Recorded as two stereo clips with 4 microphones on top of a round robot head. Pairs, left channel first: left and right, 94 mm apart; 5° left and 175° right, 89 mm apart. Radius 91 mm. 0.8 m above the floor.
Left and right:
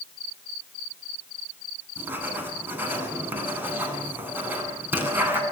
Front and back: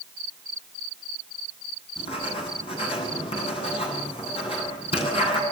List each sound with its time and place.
2.0 s writing: 20° right, 9.5 m